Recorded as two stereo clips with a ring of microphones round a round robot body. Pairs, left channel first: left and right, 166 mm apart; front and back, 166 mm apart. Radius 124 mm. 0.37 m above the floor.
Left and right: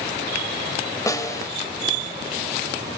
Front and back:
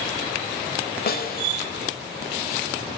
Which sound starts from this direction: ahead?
A snare drum, at 1.1 s.